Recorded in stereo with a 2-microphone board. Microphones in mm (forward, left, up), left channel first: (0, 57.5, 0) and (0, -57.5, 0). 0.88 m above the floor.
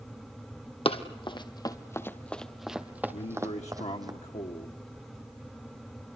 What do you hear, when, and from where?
0.8 s running footsteps: 55° left (ahead or behind), 1.5 m; by 4.1 s 35° right (ahead or behind), 1.9 m
3.1 s a man speaking: 75° left (ahead or behind), 1.3 m